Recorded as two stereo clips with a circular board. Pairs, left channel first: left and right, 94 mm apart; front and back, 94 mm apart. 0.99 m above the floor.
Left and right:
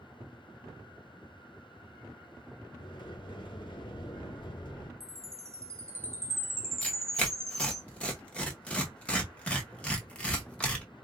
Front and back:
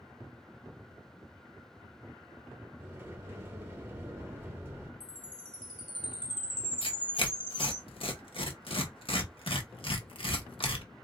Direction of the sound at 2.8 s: 115° left.